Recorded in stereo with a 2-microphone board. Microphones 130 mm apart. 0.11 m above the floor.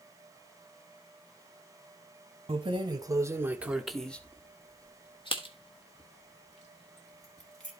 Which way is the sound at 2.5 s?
40° right (ahead or behind).